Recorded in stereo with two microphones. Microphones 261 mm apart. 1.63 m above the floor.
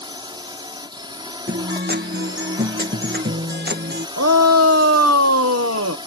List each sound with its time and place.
0.0 s a drone: 15° right (ahead or behind)
1.5 s a guitar: 40° right (ahead or behind)
4.2 s a shout: 65° right (ahead or behind)